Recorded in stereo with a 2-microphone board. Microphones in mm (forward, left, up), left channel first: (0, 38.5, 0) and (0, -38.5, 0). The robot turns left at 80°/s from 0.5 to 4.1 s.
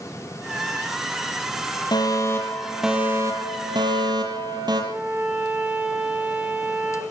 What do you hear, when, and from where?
1.9 s a fire alarm: 70° left, 7 m; by 4.8 s 110° right, 7 m
4.9 s a violin: 25° right (ahead or behind), 9.5 m